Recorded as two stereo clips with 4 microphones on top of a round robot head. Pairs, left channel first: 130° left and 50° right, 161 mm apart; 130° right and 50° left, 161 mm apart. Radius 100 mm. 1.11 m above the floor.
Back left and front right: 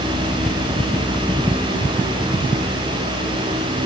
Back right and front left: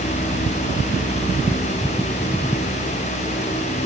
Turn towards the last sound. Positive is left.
No sound to turn to.